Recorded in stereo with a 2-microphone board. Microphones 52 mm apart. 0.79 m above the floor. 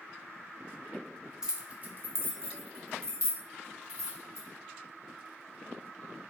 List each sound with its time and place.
1.4 s keys jangling: 15° right (ahead or behind), 0.6 m; by 4.5 s 80° right, 1.8 m